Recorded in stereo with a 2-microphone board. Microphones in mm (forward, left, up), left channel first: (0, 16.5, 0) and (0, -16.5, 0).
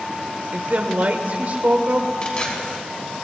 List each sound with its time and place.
0.5 s a woman speaking: 50° right (ahead or behind), 1.8 m
2.2 s tearing paper: 35° left (ahead or behind), 4.5 m